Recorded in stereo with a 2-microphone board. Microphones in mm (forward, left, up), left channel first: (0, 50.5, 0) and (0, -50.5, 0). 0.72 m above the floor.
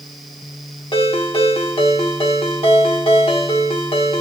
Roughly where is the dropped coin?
No dropped coin in this recording.